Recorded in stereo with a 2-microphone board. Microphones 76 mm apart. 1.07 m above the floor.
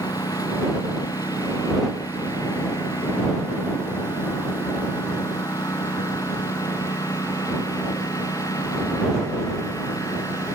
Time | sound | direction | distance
0.0 | a lawn mower | 55° left (ahead or behind) | ?